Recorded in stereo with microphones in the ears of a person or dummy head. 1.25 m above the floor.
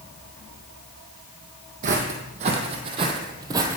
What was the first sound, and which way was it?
Footsteps, 40° right (ahead or behind).